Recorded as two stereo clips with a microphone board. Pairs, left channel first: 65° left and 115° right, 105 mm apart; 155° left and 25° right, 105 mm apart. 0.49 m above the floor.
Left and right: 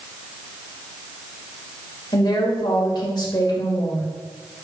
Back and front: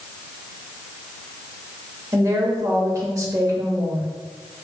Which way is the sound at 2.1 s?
30° left.